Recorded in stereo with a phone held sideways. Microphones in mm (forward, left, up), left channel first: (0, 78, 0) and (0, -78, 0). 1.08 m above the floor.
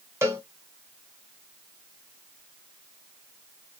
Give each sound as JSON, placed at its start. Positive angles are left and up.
{"t": 0.2, "sound": "a cowbell", "side_deg": -15, "distance_m": 1.0}